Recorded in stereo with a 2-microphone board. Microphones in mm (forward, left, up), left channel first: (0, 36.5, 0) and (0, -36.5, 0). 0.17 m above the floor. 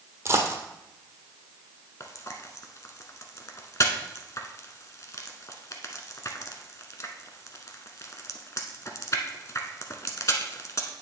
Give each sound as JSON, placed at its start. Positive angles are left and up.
{"t": 0.2, "sound": "a dropped coin", "side_deg": -40, "distance_m": 1.3}
{"t": 2.0, "sound": "frying", "side_deg": 45, "distance_m": 0.9}